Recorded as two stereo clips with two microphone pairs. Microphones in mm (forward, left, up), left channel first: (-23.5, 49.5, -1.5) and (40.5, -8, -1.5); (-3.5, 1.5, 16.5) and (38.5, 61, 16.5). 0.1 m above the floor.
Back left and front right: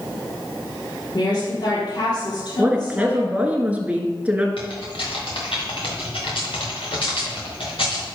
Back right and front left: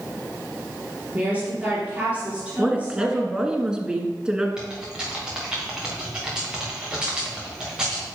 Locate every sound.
1.1 s a woman speaking: 120° left, 3.5 m
2.6 s a woman speaking: straight ahead, 1.3 m
4.6 s typing on a keyboard: 130° left, 3 m